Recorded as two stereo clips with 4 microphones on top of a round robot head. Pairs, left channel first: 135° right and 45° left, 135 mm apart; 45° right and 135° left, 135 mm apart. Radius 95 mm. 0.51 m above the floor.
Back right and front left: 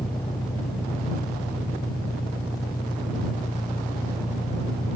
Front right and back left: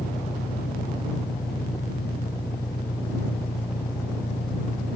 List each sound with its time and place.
0.0 s an engine running: 75° right